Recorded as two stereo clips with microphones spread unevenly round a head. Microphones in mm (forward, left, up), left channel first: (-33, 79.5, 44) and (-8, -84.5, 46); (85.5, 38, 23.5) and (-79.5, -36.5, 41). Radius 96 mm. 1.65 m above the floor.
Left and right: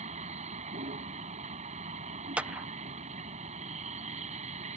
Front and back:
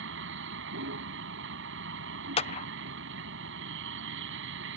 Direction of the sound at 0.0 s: 130° right.